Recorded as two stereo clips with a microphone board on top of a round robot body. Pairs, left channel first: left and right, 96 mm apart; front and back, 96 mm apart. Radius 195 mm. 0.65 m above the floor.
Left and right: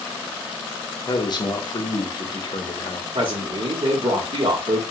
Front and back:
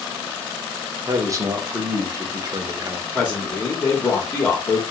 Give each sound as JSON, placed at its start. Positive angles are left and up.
{"t": 1.1, "sound": "a man speaking", "azimuth_deg": 125, "distance_m": 0.8}
{"t": 3.1, "sound": "a man speaking", "azimuth_deg": -80, "distance_m": 0.9}